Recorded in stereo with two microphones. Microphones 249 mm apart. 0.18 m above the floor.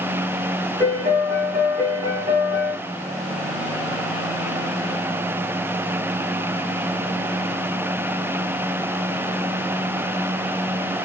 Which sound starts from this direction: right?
A piano, at 0.8 s.